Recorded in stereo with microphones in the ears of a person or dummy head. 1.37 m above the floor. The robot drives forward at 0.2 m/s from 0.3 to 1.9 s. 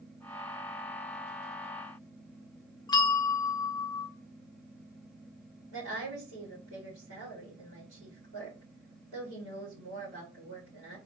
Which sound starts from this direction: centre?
A bell, at 2.9 s.